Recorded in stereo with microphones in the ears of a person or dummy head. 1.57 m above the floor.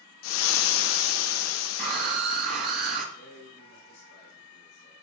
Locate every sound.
0.2 s frying: 80° left, 1.0 m
1.8 s a scream: 40° right (ahead or behind), 2.5 m
3.1 s a man speaking: 55° left (ahead or behind), 5 m